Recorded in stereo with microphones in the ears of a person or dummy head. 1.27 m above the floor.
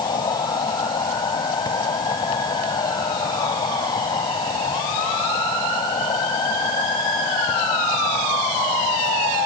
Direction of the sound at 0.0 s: 25° left (ahead or behind).